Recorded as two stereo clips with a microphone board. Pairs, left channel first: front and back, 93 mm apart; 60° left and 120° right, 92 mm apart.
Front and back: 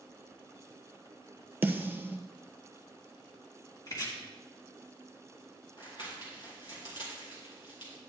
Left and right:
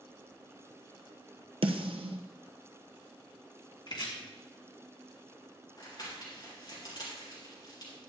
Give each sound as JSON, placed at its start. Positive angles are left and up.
{"t": 1.6, "sound": "a snare drum", "azimuth_deg": -110, "distance_m": 1.0}
{"t": 3.9, "sound": "chopping", "azimuth_deg": 45, "distance_m": 2.5}
{"t": 5.8, "sound": "crumpling", "azimuth_deg": 25, "distance_m": 4.0}